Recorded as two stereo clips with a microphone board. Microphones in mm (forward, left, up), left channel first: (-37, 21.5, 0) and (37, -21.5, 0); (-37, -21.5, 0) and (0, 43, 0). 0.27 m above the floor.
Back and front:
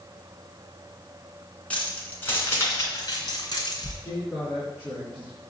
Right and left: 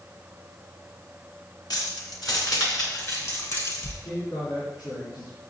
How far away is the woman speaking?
About 3.5 m.